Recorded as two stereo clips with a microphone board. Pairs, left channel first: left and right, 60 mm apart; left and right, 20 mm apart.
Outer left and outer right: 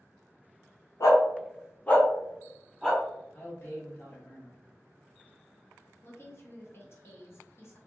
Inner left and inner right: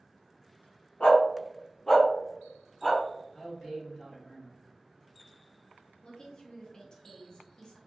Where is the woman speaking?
45° left (ahead or behind), 0.7 m.